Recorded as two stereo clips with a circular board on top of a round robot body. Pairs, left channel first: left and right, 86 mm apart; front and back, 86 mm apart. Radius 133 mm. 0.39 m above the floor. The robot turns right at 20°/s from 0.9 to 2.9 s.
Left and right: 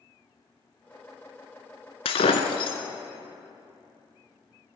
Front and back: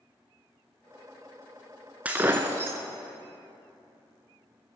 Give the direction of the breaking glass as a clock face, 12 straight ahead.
8 o'clock.